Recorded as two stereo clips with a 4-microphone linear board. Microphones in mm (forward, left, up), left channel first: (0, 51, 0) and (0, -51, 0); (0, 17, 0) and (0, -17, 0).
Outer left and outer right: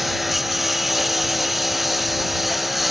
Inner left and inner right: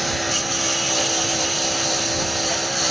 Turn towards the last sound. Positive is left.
turn(degrees=0)  # may be behind; listen again after turning